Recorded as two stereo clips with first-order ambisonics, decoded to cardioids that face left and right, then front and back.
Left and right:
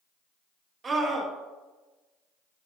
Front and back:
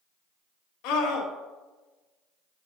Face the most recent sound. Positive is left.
turn(degrees=-20)